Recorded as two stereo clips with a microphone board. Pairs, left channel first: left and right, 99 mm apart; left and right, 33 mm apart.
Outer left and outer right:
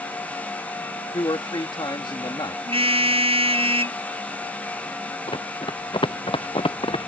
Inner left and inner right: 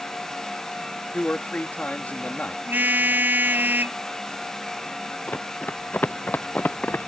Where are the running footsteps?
60° left (ahead or behind); by 7.1 s 70° left (ahead or behind).